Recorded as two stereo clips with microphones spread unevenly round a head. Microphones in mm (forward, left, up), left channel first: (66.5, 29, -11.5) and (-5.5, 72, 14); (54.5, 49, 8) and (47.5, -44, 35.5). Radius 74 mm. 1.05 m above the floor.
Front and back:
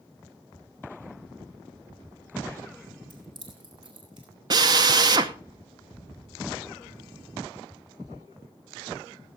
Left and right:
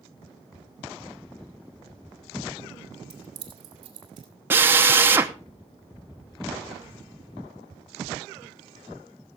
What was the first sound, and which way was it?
Keys jangling, 150° right.